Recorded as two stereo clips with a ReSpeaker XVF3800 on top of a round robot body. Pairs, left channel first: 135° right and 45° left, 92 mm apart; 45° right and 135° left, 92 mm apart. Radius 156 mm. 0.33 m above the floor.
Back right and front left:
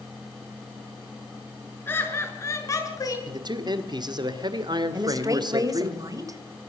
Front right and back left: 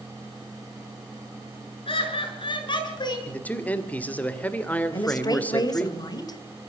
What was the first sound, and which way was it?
Laughter, 65° right.